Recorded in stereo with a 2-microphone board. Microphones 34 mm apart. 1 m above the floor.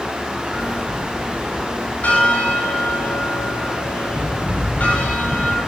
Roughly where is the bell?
Left.